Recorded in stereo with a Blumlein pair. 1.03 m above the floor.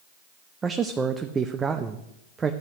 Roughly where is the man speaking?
Ahead.